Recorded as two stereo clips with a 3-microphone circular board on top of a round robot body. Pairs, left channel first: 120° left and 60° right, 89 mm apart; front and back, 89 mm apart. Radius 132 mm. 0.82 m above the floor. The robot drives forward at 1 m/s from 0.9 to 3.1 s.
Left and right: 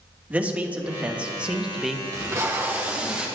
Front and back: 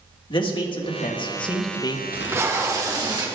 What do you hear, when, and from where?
0.3 s a man speaking: 15° left, 1.9 m; by 2.0 s 30° left, 1.0 m
2.1 s tape being pulled: 110° right, 1.6 m; by 3.3 s 135° right, 2 m